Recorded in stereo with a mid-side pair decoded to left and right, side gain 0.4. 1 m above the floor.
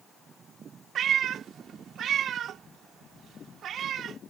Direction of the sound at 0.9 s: 70° right.